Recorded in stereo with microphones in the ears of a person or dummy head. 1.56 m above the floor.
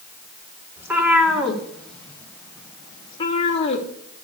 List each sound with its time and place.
0.8 s a cat meowing: 10° right (ahead or behind), 2 m; by 3.9 s 35° left (ahead or behind), 1.8 m